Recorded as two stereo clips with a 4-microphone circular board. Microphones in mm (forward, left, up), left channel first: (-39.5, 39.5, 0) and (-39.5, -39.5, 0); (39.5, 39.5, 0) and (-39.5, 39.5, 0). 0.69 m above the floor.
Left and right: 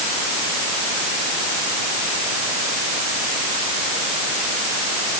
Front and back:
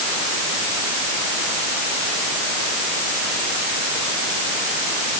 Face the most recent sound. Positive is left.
No sound to turn to.